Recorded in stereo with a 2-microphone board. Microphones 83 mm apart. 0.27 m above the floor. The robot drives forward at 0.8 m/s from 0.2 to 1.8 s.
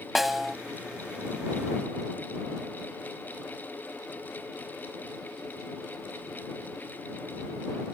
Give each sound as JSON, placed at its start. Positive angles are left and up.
{"t": 0.1, "sound": "a snare drum", "side_deg": 0}